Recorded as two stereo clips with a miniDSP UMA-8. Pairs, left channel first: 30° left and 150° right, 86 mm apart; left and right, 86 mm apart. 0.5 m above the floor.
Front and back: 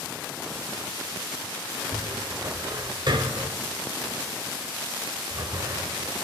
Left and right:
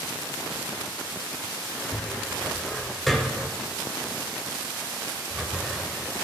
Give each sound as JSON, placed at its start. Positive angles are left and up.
{"t": 1.9, "sound": "a cupboard door", "azimuth_deg": 180, "distance_m": 0.8}